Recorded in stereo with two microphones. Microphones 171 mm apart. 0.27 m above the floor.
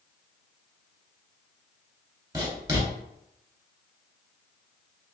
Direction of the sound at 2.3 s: 20° right (ahead or behind).